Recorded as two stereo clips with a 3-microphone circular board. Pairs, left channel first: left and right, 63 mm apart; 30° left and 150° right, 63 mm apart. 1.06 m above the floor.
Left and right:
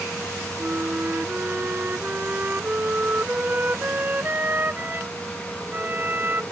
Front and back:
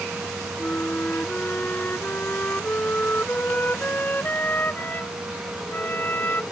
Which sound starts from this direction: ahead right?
A flute, at 0.6 s.